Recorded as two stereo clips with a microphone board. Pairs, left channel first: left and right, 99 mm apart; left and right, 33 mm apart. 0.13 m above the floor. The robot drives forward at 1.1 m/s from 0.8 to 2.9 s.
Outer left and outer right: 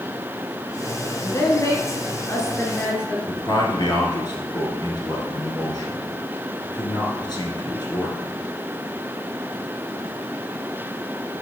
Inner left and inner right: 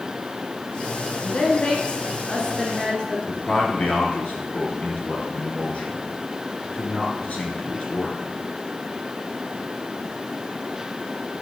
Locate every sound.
1.2 s a woman speaking: 30° left (ahead or behind), 1.5 m; by 3.2 s 25° left (ahead or behind), 1.9 m
3.3 s a man speaking: 45° left (ahead or behind), 1.8 m